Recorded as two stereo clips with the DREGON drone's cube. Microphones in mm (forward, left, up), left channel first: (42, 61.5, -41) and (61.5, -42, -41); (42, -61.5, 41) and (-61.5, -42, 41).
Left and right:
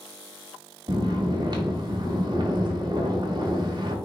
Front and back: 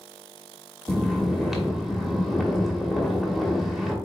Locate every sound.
0.9 s snoring: 100° right, 1.1 m